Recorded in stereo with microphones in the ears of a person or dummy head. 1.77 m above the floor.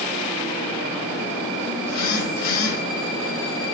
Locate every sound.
1.8 s a phone buzzing: 55° left (ahead or behind), 3 m